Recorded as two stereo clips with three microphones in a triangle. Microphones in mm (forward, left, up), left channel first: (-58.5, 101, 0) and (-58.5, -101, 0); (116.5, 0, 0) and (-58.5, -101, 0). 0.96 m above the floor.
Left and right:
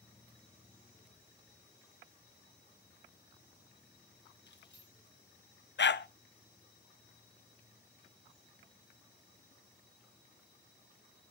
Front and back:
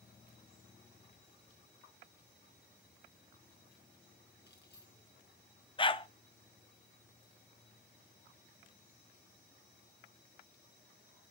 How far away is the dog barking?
About 0.6 m.